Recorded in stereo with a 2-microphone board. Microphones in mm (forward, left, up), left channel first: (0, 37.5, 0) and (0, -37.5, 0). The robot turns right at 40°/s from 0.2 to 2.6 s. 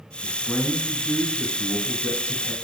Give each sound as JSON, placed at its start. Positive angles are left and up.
{"t": 0.2, "sound": "a man speaking", "side_deg": 20, "distance_m": 1.1}